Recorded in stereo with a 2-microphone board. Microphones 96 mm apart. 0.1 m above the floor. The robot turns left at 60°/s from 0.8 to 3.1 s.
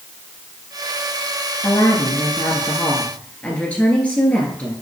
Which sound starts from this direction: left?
A woman speaking, at 1.6 s.